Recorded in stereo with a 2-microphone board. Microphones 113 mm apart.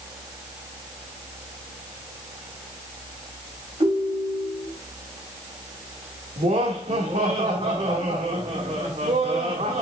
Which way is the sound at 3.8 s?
60° right (ahead or behind).